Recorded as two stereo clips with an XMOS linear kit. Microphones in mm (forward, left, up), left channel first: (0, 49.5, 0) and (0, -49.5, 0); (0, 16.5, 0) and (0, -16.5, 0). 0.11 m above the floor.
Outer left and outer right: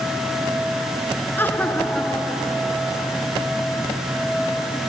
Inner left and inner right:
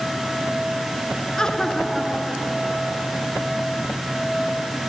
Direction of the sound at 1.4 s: 20° left (ahead or behind).